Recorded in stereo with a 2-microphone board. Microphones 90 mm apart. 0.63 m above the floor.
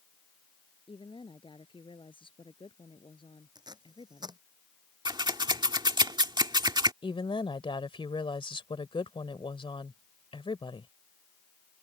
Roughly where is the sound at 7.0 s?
Left.